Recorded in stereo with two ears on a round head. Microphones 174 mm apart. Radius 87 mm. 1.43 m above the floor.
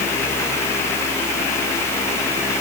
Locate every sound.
Only background noise.